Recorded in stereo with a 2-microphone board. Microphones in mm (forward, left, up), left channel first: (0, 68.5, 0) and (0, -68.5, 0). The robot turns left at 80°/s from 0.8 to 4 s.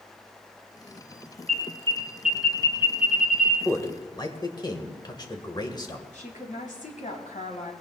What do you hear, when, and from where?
1.5 s an alarm: 65° right (ahead or behind), 3.5 m; by 3.5 s 80° left, 3.5 m
3.6 s a man speaking: 10° left (ahead or behind), 2.0 m; by 6.0 s 30° left (ahead or behind), 2.0 m
6.1 s a woman speaking: 65° left (ahead or behind), 3.5 m